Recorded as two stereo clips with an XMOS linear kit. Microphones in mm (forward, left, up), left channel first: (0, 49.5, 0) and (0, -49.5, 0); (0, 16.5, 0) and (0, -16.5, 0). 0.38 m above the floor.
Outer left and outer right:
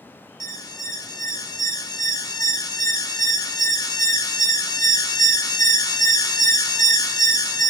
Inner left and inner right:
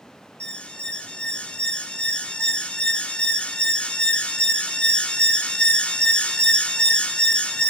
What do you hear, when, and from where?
0.4 s an alarm: 45° left (ahead or behind), 0.9 m